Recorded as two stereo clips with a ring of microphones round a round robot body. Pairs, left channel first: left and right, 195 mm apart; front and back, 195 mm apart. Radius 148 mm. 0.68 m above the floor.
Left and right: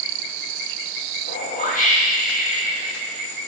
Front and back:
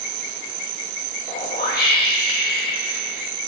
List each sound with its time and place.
1.3 s a whoosh: 40° left, 1.0 m